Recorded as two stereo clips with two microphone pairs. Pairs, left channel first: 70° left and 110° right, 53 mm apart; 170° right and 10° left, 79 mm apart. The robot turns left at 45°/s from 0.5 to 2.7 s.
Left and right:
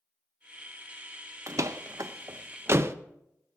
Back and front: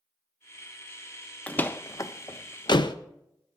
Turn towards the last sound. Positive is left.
turn(degrees=-150)